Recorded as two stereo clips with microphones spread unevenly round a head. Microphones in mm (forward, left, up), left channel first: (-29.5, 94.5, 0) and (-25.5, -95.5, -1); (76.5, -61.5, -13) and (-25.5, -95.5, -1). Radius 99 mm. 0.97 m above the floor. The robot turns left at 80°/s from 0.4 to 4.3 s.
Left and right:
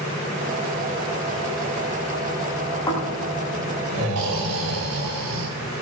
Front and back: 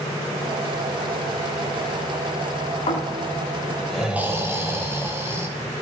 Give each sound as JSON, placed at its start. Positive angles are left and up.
{"t": 2.9, "sound": "snoring", "azimuth_deg": 20, "distance_m": 5.5}